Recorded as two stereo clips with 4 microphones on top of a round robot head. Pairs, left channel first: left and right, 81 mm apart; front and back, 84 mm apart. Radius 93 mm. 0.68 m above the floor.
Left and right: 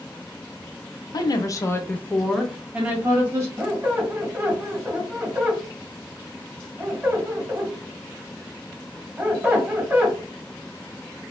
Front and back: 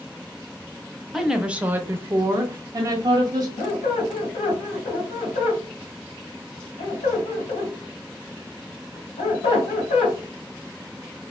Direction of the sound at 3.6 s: 20° right.